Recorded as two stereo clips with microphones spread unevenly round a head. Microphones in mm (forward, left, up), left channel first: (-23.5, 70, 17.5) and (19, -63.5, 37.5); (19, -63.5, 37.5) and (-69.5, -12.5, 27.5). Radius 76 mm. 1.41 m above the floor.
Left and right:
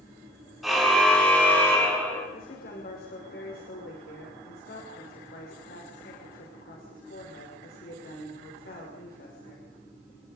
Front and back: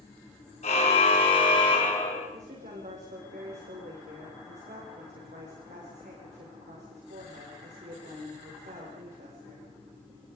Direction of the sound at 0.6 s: 15° left.